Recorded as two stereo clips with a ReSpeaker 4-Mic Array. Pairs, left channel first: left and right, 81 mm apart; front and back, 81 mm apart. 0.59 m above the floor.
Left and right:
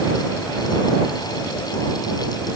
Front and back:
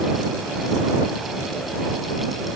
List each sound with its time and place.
Only background noise.